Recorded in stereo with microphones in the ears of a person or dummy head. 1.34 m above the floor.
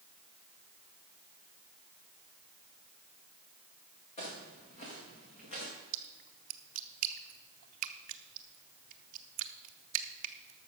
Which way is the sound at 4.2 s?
35° left (ahead or behind).